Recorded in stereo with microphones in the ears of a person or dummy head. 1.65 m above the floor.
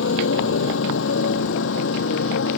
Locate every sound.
0.0 s a motorcycle: 70° left (ahead or behind); by 2.6 s 75° left (ahead or behind)